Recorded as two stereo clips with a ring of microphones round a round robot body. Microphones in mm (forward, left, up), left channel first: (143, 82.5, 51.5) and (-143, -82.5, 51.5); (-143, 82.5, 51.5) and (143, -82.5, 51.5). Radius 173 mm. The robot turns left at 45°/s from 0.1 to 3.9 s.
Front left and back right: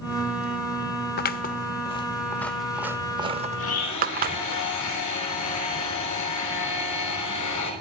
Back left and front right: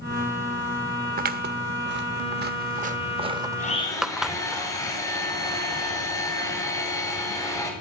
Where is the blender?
85° left, 6 m; by 7.7 s 70° left, 6 m.